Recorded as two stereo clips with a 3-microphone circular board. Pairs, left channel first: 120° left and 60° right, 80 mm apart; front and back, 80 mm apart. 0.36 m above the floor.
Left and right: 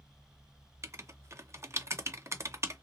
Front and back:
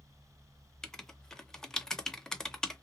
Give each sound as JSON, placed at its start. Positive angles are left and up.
{"t": 0.8, "sound": "writing", "azimuth_deg": -80, "distance_m": 0.5}